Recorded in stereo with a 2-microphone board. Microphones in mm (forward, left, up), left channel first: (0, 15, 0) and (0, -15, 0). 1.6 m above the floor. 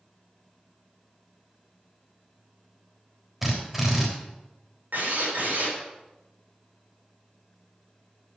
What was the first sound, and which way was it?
A drill, 10° right (ahead or behind).